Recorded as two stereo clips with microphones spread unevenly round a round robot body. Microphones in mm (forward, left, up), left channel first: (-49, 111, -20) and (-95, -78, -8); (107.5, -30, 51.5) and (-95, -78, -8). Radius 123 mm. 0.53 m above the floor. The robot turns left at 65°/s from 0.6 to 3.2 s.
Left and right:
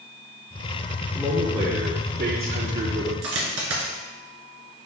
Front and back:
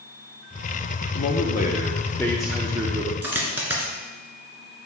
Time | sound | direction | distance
1.1 | a man speaking | 15° right | 0.8 m
3.2 | a dropped coin | 80° right | 1.8 m